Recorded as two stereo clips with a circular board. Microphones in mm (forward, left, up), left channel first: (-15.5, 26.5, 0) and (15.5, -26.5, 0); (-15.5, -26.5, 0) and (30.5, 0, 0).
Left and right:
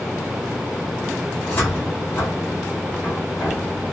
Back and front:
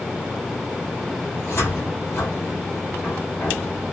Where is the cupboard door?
175° left, 2 m.